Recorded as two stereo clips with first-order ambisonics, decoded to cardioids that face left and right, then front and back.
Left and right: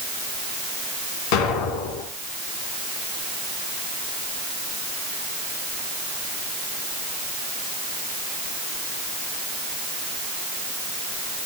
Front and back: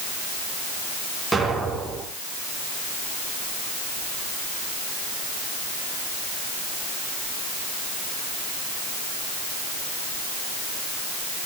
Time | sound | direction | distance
1.3 | an explosion | 95° left | 3 m